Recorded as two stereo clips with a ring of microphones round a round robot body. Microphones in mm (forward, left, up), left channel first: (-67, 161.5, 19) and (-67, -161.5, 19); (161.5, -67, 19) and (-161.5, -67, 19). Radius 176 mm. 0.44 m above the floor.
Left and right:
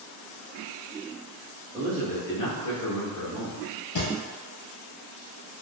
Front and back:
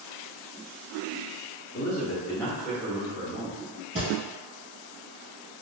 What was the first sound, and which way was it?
A man speaking, 20° right.